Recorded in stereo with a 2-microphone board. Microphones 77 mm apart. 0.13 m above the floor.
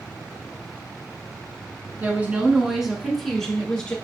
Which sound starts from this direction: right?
A woman speaking, at 2.0 s.